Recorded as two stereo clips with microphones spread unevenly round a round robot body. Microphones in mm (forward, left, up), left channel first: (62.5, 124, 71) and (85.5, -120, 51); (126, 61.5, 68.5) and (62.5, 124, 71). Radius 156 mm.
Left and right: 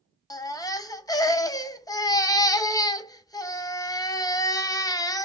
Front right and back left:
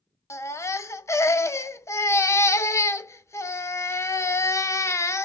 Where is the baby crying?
15° left, 0.6 m.